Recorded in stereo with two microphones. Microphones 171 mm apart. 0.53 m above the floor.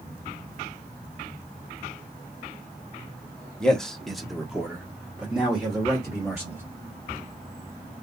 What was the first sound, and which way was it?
A man speaking, 5° left (ahead or behind).